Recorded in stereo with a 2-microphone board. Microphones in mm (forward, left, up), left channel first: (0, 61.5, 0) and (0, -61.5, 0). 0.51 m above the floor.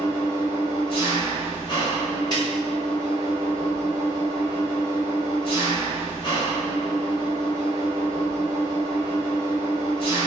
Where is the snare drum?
35° left (ahead or behind), 1.7 m.